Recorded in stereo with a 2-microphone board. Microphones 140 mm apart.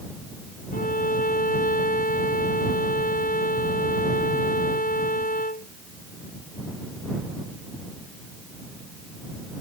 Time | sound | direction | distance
0.7 | a violin | 80° left | ?